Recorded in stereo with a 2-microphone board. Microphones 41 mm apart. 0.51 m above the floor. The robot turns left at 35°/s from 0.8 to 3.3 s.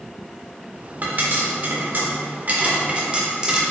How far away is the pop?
About 1.5 m.